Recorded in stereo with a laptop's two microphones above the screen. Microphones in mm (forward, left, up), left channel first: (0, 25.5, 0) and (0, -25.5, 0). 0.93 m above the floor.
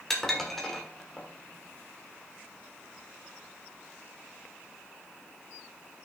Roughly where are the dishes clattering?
Centre.